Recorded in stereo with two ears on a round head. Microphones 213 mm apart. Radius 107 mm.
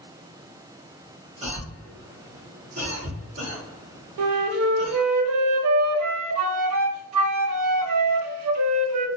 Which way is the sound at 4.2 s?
75° right (ahead or behind).